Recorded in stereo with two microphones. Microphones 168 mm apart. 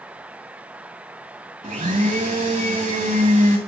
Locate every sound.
1.6 s a blender: 45° right (ahead or behind), 3 m